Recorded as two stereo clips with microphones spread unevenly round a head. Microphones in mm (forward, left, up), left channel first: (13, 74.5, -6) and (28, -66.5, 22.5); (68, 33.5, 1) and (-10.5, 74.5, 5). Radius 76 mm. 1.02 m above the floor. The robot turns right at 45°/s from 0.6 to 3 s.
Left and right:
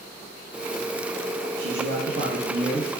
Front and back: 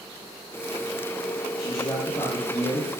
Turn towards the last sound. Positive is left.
turn(degrees=-25)